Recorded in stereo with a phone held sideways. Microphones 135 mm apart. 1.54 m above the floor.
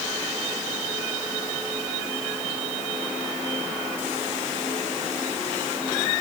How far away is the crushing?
No crushing in this recording.